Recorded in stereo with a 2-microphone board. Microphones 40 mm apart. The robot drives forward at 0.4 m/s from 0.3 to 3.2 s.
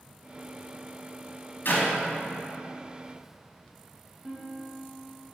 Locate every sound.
1.6 s a clap: 55° left (ahead or behind), 2 m
4.2 s a guitar: 20° right (ahead or behind), 1.1 m